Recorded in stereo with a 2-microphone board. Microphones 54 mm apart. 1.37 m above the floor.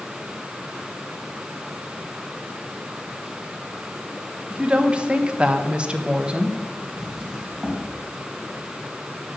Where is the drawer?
10° right (ahead or behind), 3 m.